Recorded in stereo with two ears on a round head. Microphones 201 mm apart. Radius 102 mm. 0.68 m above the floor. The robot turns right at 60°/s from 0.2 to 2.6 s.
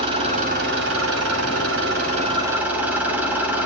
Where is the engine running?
150° right, 4 m; by 3.7 s 10° right, 4 m.